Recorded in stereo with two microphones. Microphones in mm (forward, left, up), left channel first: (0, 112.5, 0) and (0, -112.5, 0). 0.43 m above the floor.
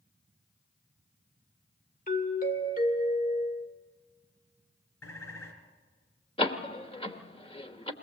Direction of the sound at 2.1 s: 40° left (ahead or behind).